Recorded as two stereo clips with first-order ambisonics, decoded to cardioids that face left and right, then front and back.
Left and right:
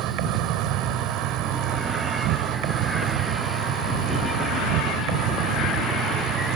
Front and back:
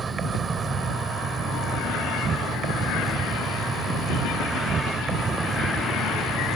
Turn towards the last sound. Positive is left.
turn(degrees=-115)